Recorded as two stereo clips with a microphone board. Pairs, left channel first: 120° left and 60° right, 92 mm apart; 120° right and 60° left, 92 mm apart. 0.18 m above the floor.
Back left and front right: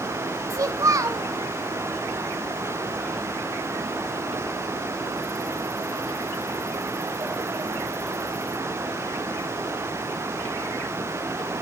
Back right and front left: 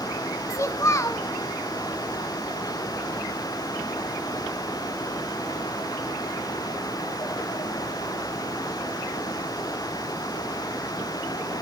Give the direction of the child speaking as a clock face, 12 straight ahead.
3 o'clock.